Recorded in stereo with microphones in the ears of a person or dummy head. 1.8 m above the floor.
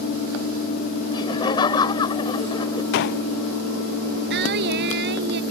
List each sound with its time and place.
1.1 s laughter: 30° left (ahead or behind)
2.9 s a gunshot: 65° left (ahead or behind)
4.3 s singing: 60° right (ahead or behind)